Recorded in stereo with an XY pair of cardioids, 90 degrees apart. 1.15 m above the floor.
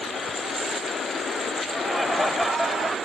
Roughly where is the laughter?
Ahead.